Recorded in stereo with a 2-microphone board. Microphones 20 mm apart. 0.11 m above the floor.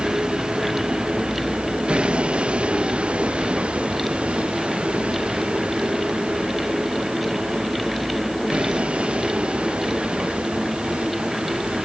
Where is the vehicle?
45° right (ahead or behind); by 11.8 s 80° right.